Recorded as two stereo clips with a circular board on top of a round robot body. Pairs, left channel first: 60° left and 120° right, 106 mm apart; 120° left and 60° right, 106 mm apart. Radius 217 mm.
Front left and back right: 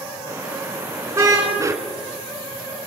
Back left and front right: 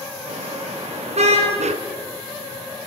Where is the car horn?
55° right, 6.5 m.